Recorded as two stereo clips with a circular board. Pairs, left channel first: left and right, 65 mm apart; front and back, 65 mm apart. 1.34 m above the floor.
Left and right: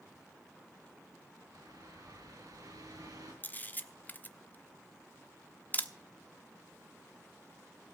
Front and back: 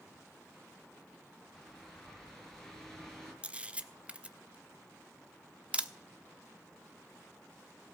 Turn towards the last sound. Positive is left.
turn(degrees=125)